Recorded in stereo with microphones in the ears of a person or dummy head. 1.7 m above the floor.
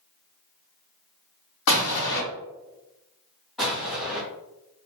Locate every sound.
1.7 s an explosion: 80° left, 1.0 m
3.6 s an explosion: 5° left (ahead or behind), 1.1 m